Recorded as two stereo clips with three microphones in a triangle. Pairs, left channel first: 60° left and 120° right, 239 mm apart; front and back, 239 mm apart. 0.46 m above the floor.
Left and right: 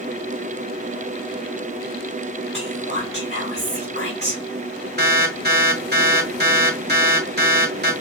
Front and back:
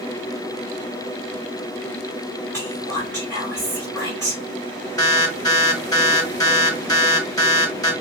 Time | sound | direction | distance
2.5 | whispering | 105° right | 3 m
5.0 | an alarm | 75° right | 1.7 m